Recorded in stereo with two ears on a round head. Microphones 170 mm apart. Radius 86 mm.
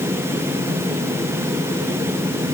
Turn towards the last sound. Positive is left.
No sound to turn to.